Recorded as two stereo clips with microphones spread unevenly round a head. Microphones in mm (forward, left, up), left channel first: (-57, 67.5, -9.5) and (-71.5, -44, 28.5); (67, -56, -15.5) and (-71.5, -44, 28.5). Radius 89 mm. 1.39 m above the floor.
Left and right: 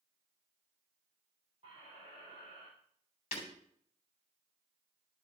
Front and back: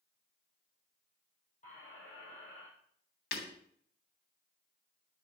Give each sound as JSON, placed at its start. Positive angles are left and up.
{"t": 1.6, "sound": "a squeak", "azimuth_deg": -35, "distance_m": 7.0}
{"t": 3.3, "sound": "breaking glass", "azimuth_deg": 20, "distance_m": 3.0}